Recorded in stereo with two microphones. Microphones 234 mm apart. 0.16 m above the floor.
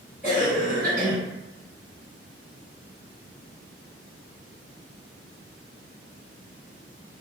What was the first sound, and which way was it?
A cough, 40° right (ahead or behind).